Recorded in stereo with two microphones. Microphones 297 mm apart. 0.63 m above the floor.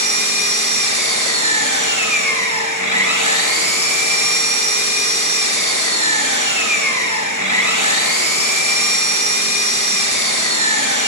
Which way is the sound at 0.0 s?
75° right (ahead or behind).